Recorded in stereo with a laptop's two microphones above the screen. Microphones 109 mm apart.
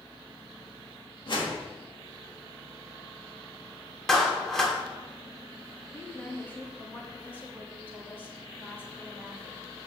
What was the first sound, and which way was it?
A whoosh, 50° left (ahead or behind).